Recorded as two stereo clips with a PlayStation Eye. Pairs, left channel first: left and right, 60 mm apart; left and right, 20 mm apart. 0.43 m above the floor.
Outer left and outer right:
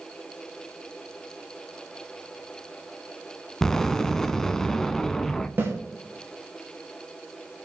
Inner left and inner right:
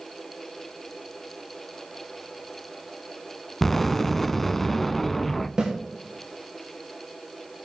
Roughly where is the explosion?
Centre.